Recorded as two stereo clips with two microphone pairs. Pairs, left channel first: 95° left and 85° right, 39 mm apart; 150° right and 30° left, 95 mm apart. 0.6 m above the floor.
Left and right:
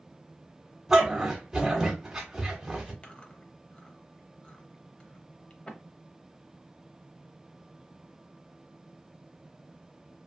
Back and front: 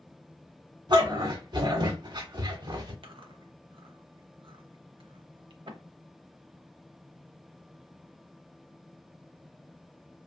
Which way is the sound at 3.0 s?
35° left.